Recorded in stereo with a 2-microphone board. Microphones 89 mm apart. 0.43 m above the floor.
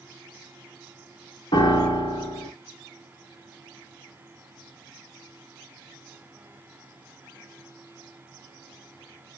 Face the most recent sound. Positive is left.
turn(degrees=70)  # may be behind; listen again after turning